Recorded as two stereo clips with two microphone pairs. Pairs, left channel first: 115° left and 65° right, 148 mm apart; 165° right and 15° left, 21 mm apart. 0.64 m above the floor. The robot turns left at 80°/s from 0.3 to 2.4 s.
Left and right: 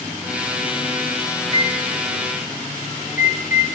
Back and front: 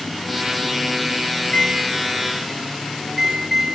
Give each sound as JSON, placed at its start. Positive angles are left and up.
{"t": 1.4, "sound": "a microwave", "azimuth_deg": 175, "distance_m": 1.7}